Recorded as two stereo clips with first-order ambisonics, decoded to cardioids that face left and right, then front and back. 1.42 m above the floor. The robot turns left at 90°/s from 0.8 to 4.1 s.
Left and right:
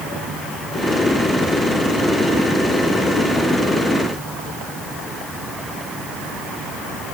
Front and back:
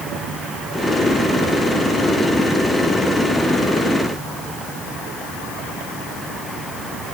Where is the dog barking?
No dog barking in this recording.